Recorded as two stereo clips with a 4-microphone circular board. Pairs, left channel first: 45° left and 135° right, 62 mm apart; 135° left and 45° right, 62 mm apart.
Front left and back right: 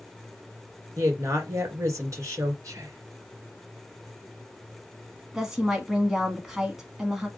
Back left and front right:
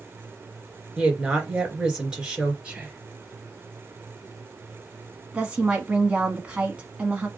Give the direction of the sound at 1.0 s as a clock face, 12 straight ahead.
4 o'clock.